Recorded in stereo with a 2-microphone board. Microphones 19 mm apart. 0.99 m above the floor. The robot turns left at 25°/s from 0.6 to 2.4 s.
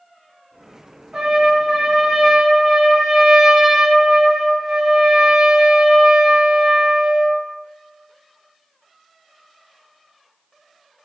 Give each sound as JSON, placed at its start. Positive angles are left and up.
{"t": 1.1, "sound": "a trumpet", "azimuth_deg": -75, "distance_m": 0.8}